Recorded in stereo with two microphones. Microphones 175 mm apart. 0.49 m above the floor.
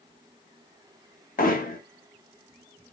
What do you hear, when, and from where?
1.4 s hammering: 55° left (ahead or behind), 0.8 m